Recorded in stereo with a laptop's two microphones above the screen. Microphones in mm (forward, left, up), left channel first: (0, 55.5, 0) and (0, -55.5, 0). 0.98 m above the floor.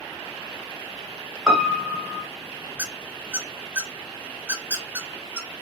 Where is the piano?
Centre (ahead or behind), 0.5 m.